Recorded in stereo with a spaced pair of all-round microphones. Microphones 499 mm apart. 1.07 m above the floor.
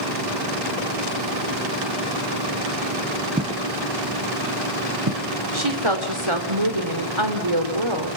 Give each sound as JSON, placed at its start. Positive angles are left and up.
{"t": 3.4, "sound": "footsteps", "side_deg": -15, "distance_m": 1.2}
{"t": 5.5, "sound": "a woman speaking", "side_deg": -70, "distance_m": 3.5}